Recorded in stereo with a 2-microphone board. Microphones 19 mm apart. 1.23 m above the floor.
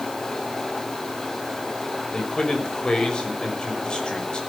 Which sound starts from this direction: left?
A man speaking, at 2.1 s.